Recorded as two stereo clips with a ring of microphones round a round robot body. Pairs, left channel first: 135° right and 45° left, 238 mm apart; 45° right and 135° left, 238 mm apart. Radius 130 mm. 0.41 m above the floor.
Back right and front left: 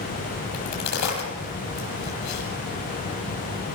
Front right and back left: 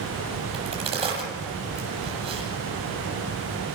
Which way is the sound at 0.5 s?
155° right.